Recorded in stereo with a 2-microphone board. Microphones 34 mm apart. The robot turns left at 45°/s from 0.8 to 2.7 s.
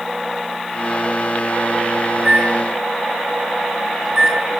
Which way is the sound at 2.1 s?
50° right (ahead or behind).